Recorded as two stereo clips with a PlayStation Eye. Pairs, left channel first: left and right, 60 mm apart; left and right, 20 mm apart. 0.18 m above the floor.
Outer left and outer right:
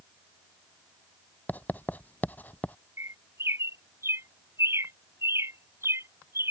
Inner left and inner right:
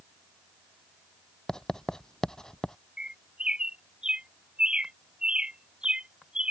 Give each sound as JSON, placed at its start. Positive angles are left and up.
{"t": 1.5, "sound": "writing", "side_deg": 30}
{"t": 3.0, "sound": "a bird", "side_deg": -45}